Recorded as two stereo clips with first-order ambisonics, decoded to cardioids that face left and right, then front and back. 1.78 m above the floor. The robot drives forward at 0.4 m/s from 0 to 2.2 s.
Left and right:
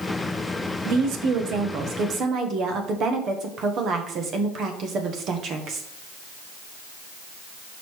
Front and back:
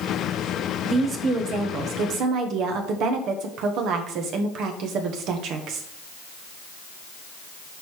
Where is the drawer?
No drawer in this recording.